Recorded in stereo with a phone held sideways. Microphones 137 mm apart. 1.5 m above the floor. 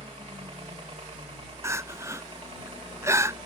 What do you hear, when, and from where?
0.0 s a helicopter: 40° right (ahead or behind)
1.6 s crying: 20° right (ahead or behind)